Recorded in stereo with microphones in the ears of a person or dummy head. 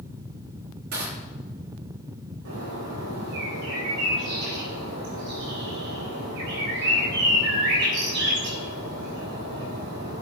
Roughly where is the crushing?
Right.